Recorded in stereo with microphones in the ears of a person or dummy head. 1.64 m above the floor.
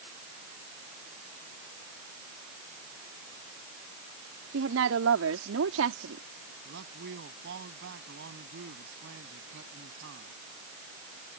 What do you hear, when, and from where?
4.5 s a woman speaking: 80° right; by 6.2 s 85° right
6.7 s a man speaking: 65° right (ahead or behind)